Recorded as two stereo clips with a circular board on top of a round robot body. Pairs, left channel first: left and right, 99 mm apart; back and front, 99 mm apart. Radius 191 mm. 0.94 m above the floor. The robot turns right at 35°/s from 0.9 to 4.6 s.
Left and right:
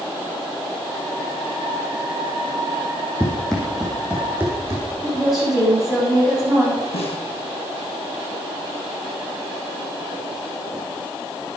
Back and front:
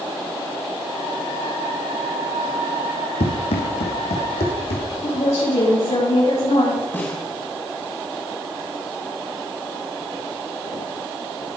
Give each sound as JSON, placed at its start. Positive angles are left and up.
{"t": 3.2, "sound": "running footsteps", "azimuth_deg": 165, "distance_m": 2.5}
{"t": 5.0, "sound": "a woman speaking", "azimuth_deg": -175, "distance_m": 8.0}
{"t": 6.9, "sound": "a snare drum", "azimuth_deg": 110, "distance_m": 4.0}